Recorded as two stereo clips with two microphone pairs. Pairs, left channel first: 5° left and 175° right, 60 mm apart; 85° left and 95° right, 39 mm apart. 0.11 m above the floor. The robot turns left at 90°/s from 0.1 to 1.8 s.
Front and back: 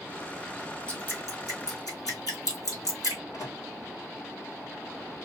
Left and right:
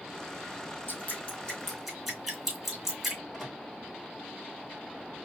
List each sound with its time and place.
0.9 s dripping: 80° left, 3 m; by 3.2 s 5° right, 3 m
3.3 s a microwave: straight ahead, 4 m